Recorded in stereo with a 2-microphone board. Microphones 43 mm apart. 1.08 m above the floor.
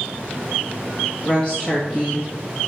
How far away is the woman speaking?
About 1.7 m.